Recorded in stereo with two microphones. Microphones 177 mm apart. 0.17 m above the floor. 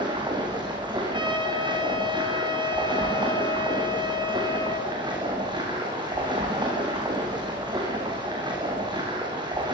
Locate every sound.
0.0 s running water: 25° right (ahead or behind), 8 m
1.1 s a trumpet: 25° right (ahead or behind), 4 m